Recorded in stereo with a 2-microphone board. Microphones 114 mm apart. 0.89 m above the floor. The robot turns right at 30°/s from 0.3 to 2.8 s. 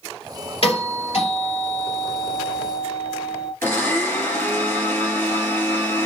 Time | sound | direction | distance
0.6 | a doorbell | 65° left | 3 m
3.6 | a blender | 25° left (ahead or behind) | 2.5 m